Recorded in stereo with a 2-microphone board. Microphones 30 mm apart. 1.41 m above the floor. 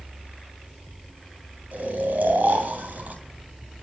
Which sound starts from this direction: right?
Snoring, at 1.7 s.